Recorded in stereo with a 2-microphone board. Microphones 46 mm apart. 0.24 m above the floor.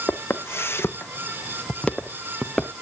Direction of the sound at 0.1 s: 80° left.